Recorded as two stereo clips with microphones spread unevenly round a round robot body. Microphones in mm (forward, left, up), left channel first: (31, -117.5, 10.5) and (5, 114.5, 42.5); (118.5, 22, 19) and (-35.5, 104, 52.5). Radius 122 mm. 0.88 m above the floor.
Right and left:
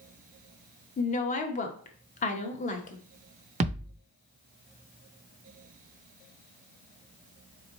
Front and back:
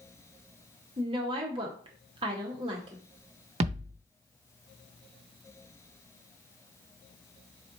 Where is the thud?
140° left, 0.6 m.